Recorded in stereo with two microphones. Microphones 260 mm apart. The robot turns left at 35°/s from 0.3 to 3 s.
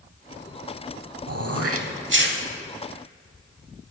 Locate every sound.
1.3 s throat clearing: 80° right, 0.6 m; by 2.4 s 45° right (ahead or behind), 0.6 m